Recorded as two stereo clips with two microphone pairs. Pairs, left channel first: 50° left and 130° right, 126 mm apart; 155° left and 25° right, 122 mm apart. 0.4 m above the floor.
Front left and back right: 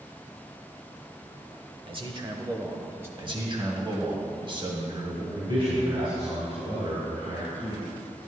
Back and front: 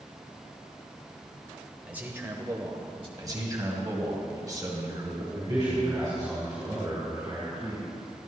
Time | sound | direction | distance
1.9 | a man speaking | 100° right | 1.1 m
3.2 | a man speaking | 80° right | 1.9 m
5.3 | a man speaking | 85° right | 3 m